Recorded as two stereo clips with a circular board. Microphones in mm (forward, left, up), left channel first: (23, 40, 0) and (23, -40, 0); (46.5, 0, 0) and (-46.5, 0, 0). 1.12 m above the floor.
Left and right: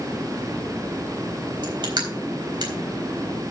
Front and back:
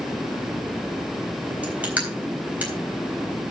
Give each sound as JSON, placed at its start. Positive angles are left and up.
{"t": 1.6, "sound": "crushing", "azimuth_deg": -105, "distance_m": 3.5}